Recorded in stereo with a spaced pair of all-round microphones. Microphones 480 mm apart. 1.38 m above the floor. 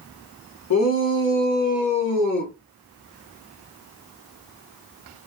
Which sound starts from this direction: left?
A shout, at 0.7 s.